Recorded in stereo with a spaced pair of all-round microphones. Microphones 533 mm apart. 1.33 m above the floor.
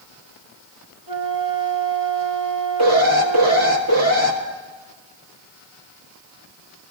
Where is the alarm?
30° right (ahead or behind), 1.6 m.